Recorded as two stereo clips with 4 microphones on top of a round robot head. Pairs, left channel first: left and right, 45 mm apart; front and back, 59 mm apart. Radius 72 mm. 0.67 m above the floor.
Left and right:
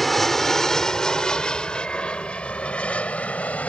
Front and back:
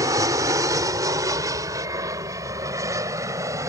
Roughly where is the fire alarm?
No fire alarm in this recording.